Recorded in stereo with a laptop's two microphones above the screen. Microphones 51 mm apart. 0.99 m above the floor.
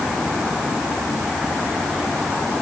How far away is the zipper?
I don't hear a zipper.